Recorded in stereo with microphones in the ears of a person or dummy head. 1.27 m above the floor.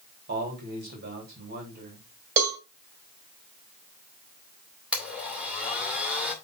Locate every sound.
0.3 s a man speaking: 55° right (ahead or behind), 3 m
2.4 s a cowbell: 50° right (ahead or behind), 1.6 m
4.9 s a blender: 10° right (ahead or behind), 2 m